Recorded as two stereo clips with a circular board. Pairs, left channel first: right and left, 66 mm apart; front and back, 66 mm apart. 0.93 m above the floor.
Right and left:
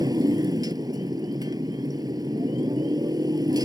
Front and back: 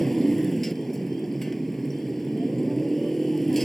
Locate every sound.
0.0 s a motorcycle: 85° left